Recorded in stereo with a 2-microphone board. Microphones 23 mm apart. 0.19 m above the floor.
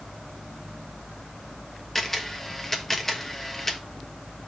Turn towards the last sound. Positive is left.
turn(degrees=15)  # may be behind; listen again after turning